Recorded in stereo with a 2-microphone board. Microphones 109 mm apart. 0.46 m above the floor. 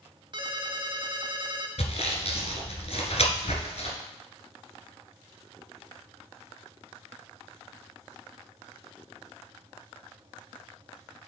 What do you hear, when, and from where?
0.3 s a ringtone: 45° right (ahead or behind), 1.1 m
1.8 s sawing: 70° left (ahead or behind), 1.7 m